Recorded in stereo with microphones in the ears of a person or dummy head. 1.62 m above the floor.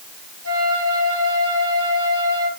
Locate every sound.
0.4 s a flute: 85° right, 3 m